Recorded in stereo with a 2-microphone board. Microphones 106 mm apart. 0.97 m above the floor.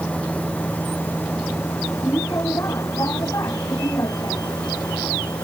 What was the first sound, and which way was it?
A vehicle, 15° left (ahead or behind).